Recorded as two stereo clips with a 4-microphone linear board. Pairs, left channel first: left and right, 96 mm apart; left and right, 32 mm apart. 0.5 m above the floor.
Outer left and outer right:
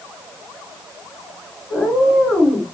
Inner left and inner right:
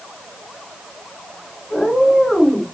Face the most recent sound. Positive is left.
turn(degrees=10)  # may be behind; listen again after turning